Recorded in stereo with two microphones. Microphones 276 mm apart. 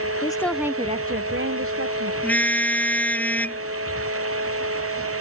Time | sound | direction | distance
0.2 | a woman speaking | 20° left (ahead or behind) | ?
2.2 | a car horn | 5° left (ahead or behind) | ?